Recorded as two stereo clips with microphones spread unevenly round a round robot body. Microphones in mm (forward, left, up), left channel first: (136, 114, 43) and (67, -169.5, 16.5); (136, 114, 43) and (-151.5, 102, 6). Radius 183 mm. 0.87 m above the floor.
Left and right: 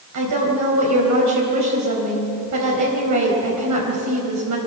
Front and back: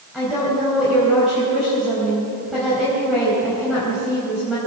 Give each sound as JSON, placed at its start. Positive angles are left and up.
{"t": 0.1, "sound": "a woman speaking", "azimuth_deg": -90, "distance_m": 4.5}